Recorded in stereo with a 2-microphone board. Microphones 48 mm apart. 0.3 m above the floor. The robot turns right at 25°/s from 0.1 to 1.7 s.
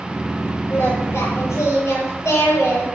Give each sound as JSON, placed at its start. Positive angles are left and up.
{"t": 0.7, "sound": "singing", "side_deg": 65, "distance_m": 8.0}